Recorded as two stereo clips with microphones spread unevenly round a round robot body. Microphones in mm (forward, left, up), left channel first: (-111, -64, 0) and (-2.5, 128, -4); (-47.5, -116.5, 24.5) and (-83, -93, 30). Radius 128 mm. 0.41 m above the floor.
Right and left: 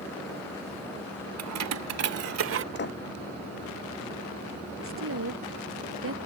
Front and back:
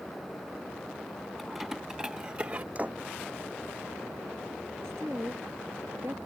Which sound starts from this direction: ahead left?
Keys jangling, at 1.4 s.